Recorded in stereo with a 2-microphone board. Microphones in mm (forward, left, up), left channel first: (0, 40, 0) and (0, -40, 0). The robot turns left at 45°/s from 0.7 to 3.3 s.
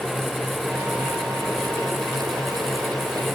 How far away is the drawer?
I don't hear a drawer.